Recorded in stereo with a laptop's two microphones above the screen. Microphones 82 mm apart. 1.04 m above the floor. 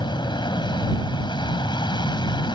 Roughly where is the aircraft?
Left.